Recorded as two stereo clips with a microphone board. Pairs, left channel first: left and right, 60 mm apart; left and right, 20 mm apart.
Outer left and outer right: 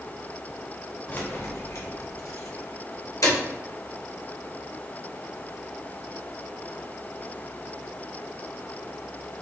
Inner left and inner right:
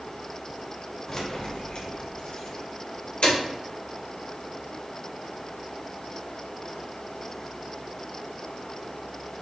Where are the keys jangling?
30° left (ahead or behind), 0.7 m; by 3.4 s 75° left (ahead or behind), 1.8 m.